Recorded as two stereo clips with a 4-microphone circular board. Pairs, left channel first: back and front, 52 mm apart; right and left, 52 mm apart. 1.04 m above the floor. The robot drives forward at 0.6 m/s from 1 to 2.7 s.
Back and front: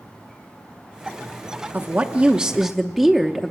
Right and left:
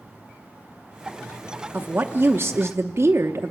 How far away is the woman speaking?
About 0.9 m.